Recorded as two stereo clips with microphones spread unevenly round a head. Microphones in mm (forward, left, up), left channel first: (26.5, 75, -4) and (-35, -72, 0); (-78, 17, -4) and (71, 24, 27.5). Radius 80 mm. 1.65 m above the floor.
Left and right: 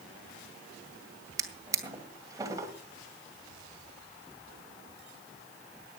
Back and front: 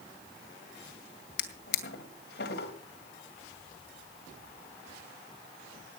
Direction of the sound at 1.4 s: 175° right.